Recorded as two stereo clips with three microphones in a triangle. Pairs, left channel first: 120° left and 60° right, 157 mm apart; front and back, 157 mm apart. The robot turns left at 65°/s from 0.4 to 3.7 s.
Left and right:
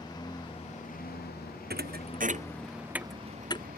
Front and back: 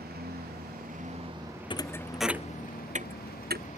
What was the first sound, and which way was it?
A lawn mower, 175° right.